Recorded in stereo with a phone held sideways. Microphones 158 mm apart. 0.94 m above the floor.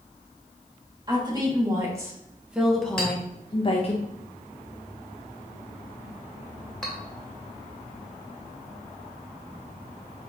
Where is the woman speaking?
25° right (ahead or behind), 1.6 m; by 4.0 s 45° left (ahead or behind), 0.8 m.